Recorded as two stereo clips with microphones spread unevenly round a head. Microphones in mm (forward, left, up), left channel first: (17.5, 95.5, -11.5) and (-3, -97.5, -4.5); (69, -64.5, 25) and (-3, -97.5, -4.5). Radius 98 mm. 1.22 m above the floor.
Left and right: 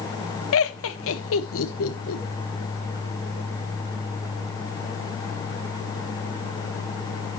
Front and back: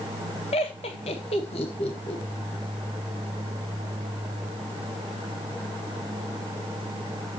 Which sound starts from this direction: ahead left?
Laughter, at 0.5 s.